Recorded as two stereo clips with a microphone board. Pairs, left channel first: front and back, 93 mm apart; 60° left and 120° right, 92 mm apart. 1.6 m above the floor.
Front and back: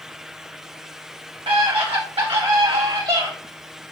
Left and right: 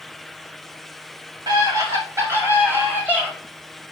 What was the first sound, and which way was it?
A scream, 160° right.